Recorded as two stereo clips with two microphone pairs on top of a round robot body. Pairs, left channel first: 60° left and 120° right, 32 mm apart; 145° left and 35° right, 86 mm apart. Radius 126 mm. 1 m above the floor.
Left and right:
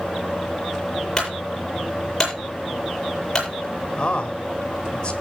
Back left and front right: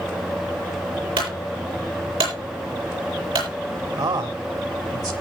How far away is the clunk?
About 9 m.